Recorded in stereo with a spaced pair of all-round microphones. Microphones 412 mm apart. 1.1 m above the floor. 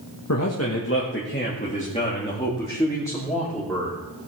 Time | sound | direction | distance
0.3 | a man speaking | 40° left (ahead or behind) | 1.4 m